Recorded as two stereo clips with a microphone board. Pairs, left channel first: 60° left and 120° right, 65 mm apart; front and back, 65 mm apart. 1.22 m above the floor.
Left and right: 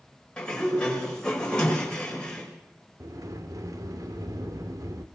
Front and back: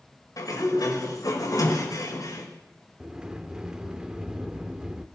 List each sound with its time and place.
0.4 s a sliding door: 15° right, 5.5 m
3.0 s a sliding door: 105° right, 1.6 m